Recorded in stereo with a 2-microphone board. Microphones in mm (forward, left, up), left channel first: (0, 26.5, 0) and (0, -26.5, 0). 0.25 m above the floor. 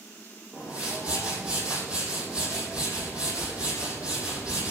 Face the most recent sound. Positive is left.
turn(degrees=-25)  # may be behind; listen again after turning